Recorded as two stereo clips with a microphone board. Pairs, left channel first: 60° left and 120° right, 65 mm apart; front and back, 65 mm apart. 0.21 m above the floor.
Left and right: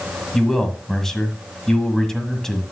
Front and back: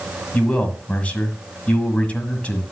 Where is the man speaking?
15° right, 1.5 m.